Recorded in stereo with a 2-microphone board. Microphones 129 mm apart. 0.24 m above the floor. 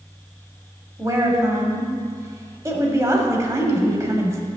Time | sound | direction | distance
1.0 | a woman speaking | 25° right (ahead or behind) | 1.1 m